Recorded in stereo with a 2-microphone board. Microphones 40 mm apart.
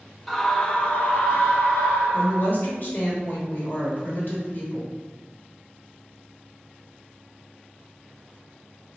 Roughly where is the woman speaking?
Left.